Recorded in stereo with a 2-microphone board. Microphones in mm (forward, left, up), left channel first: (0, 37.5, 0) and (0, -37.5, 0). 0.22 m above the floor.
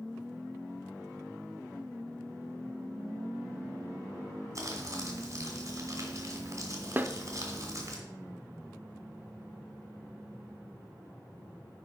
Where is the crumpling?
45° right (ahead or behind), 2 m.